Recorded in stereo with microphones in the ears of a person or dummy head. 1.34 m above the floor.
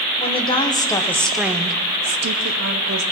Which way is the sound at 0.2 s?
30° left (ahead or behind).